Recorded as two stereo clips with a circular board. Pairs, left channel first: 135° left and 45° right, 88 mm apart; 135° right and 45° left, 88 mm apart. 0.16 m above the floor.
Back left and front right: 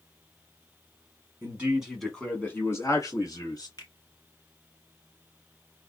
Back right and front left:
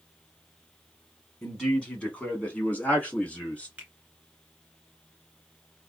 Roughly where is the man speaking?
Ahead right.